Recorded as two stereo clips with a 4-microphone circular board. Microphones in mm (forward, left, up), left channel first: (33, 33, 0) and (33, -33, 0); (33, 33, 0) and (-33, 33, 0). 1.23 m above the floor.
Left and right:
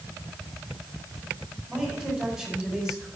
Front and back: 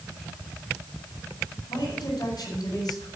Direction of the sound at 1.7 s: 10° right.